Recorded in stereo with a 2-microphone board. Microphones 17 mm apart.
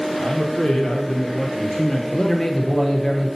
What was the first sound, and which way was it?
A man speaking, 55° left (ahead or behind).